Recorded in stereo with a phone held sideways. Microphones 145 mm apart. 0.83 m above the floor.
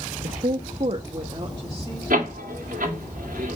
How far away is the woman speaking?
About 0.6 m.